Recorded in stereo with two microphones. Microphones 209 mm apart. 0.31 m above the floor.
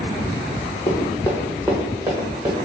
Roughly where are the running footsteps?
Left.